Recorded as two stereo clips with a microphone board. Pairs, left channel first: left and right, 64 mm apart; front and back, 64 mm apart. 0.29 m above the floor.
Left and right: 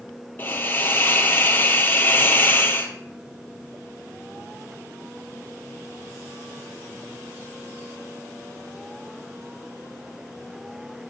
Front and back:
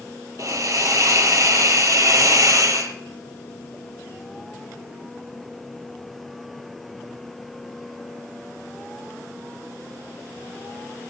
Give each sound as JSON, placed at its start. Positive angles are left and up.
{"t": 0.4, "sound": "a hiss", "azimuth_deg": 150, "distance_m": 3.0}